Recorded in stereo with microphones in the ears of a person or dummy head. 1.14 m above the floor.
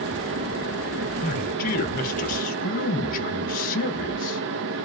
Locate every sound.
0.0 s a fan: 65° right (ahead or behind), 0.7 m
1.2 s a man speaking: 40° left (ahead or behind), 1.1 m